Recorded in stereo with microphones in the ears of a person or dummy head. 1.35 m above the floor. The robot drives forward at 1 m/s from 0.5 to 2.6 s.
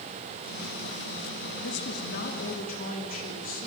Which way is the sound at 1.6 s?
65° left (ahead or behind).